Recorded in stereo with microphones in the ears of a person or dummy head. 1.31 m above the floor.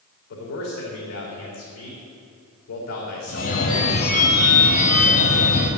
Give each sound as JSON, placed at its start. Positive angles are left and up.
{"t": 0.3, "sound": "a man speaking", "side_deg": 65, "distance_m": 3.5}
{"t": 3.3, "sound": "a phone ringing", "side_deg": 45, "distance_m": 1.6}